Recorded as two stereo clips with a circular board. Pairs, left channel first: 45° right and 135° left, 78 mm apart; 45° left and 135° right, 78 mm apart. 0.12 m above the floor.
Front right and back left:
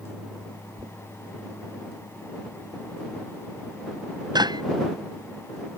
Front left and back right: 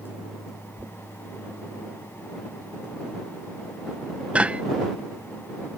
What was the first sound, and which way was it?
Knocking, 150° left.